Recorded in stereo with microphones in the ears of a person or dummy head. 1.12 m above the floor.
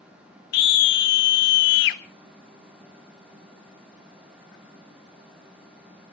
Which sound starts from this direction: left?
A scream, at 0.5 s.